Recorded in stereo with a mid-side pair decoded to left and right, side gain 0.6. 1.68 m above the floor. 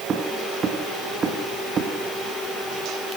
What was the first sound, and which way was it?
Footsteps, 35° right.